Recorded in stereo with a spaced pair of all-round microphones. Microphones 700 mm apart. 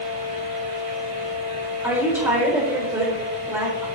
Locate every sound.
0.0 s a fan: 70° right (ahead or behind), 5.5 m
1.8 s a woman speaking: 5° right (ahead or behind), 4 m